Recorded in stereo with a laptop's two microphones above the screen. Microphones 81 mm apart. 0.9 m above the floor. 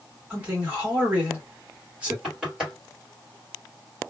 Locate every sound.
0.3 s a man speaking: 15° right (ahead or behind), 1.5 m
2.2 s knocking: 5° right (ahead or behind), 1.7 m